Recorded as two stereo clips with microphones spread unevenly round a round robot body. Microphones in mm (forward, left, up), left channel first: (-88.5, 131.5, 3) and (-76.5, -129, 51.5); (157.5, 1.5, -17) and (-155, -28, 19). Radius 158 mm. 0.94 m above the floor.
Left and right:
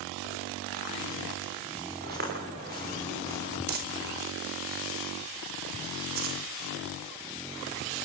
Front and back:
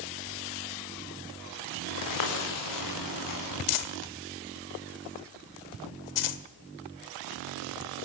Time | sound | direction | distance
2.0 | footsteps | 25° right | 9 m
3.7 | crumpling | 25° right | 1.9 m